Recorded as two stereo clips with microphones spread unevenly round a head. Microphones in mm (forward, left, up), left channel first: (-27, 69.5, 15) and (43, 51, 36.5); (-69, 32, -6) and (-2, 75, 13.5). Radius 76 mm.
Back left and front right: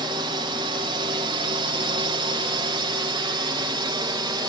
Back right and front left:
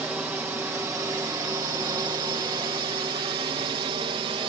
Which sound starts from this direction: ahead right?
A drone, at 0.0 s.